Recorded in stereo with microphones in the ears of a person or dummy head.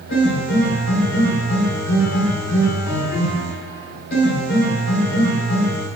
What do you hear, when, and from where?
0.1 s a piano: 70° left (ahead or behind), 1.6 m